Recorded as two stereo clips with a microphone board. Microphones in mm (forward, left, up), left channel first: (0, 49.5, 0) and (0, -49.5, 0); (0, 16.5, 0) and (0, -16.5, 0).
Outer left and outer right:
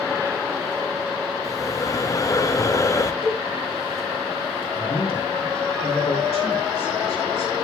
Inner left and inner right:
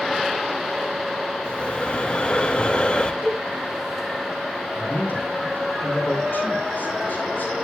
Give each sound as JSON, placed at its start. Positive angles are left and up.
{"t": 1.4, "sound": "breathing", "side_deg": 35, "distance_m": 0.7}
{"t": 3.2, "sound": "a cowbell", "side_deg": -60, "distance_m": 5.0}
{"t": 4.8, "sound": "a man speaking", "side_deg": 80, "distance_m": 4.0}